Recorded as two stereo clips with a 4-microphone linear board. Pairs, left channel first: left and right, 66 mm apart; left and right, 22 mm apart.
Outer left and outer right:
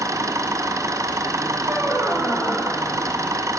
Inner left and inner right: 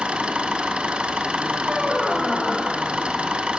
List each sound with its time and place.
0.0 s an engine running: 60° right (ahead or behind), 1.6 m
1.6 s a squeak: 40° right (ahead or behind), 3.5 m